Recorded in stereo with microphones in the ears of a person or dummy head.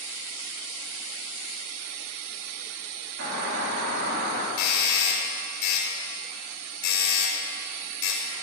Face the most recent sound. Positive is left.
turn(degrees=65)  # may be behind; listen again after turning